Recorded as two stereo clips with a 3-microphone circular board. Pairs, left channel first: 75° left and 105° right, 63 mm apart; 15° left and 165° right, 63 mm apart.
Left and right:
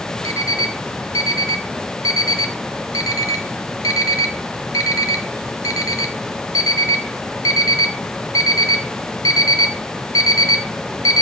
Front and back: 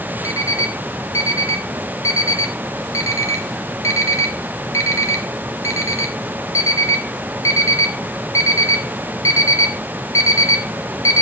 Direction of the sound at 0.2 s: 50° left.